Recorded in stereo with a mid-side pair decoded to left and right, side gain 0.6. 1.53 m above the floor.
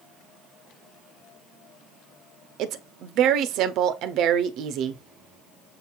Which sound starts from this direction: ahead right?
A woman speaking, at 2.6 s.